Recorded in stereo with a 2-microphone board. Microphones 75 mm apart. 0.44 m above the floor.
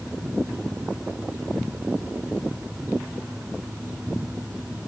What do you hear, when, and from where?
Only background noise.